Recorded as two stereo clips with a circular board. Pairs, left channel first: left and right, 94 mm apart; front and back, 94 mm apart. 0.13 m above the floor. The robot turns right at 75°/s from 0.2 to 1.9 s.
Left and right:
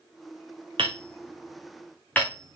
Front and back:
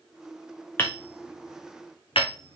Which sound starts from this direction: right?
Hammering, at 0.8 s.